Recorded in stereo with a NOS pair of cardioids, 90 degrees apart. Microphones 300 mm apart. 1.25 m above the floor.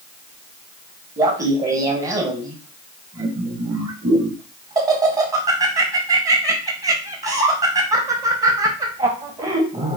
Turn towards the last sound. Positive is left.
turn(degrees=-25)